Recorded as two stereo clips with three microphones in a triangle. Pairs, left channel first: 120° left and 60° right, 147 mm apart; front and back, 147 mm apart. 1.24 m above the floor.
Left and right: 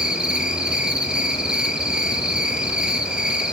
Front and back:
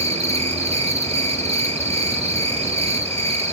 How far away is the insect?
About 1.9 m.